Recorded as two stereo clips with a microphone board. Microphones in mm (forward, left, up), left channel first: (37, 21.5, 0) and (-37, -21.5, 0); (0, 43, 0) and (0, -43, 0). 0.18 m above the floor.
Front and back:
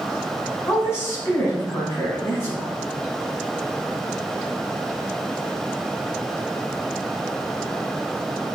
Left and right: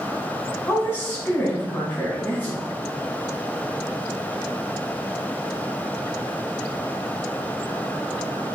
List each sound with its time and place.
0.7 s a woman speaking: 45° left, 1.5 m